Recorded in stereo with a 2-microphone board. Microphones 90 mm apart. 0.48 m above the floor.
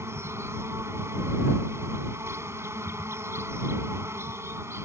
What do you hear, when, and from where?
0.0 s an insect: 30° right (ahead or behind)